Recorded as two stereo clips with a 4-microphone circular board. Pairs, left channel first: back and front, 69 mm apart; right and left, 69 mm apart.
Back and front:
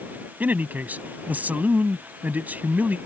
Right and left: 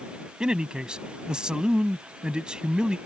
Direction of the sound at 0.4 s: 30° left.